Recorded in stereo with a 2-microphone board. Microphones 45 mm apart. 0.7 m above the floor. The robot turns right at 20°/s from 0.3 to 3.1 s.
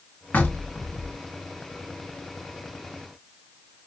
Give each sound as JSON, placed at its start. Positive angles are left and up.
{"t": 0.3, "sound": "knocking", "side_deg": 45, "distance_m": 1.3}